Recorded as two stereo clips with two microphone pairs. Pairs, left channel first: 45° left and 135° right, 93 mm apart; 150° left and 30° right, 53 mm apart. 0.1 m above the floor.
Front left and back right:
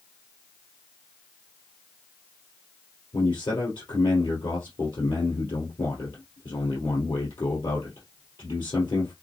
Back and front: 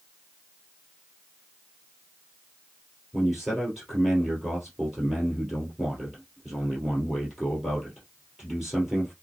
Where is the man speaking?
55° left, 2.5 m.